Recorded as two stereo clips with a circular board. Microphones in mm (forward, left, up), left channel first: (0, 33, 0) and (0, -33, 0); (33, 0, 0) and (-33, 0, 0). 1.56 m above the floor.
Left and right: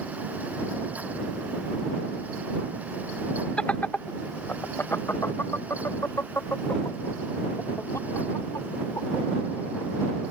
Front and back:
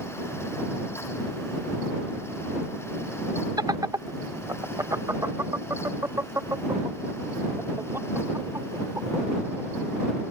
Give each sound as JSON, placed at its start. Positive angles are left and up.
{"t": 3.6, "sound": "laughter", "azimuth_deg": 165}